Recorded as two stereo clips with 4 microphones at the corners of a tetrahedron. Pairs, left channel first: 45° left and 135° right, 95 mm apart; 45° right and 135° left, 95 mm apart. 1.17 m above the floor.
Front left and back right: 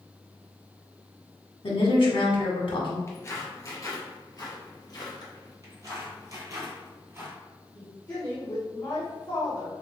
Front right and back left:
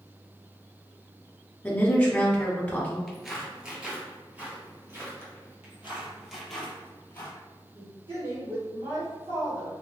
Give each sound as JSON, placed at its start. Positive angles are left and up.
{"t": 1.6, "sound": "a woman speaking", "azimuth_deg": 30, "distance_m": 1.3}
{"t": 3.1, "sound": "footsteps", "azimuth_deg": 40, "distance_m": 1.2}
{"t": 5.6, "sound": "footsteps", "azimuth_deg": -165, "distance_m": 1.6}
{"t": 7.8, "sound": "a woman speaking", "azimuth_deg": 115, "distance_m": 1.5}